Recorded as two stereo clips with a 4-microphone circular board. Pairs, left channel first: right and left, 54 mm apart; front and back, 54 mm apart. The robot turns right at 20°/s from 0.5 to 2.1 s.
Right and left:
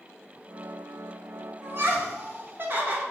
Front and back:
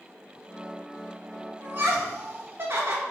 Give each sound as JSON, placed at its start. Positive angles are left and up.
{"t": 1.6, "sound": "laughter", "azimuth_deg": 130, "distance_m": 0.6}